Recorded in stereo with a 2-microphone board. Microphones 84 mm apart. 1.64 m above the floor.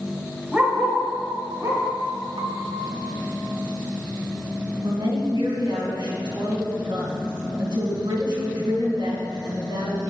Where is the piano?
65° right (ahead or behind), 0.8 m.